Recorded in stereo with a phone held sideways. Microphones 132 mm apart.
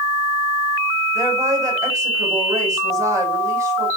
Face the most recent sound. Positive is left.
turn(degrees=-25)  # may be behind; listen again after turning